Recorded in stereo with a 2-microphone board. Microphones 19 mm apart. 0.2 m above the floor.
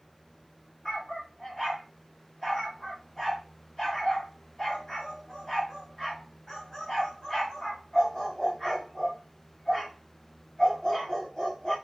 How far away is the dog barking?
About 6 m.